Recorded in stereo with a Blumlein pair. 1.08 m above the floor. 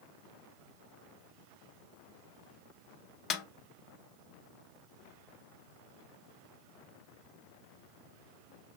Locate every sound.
3.3 s a snare drum: 30° left, 0.6 m